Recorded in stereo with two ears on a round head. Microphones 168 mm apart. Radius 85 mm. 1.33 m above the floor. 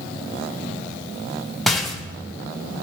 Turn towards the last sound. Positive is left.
turn(degrees=0)  # may be behind; listen again after turning